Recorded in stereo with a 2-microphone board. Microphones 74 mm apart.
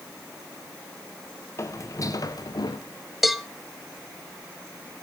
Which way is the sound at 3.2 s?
Centre (ahead or behind).